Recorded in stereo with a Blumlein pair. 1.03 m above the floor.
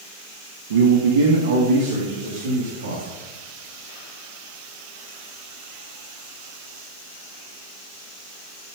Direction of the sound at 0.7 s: 60° right.